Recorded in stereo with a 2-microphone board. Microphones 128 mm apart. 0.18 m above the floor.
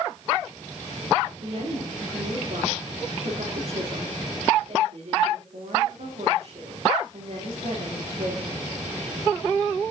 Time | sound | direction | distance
1.4 | a woman speaking | 60° right (ahead or behind) | 9 m